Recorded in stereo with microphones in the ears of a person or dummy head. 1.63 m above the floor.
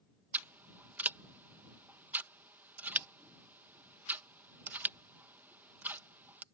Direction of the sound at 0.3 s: 10° right (ahead or behind).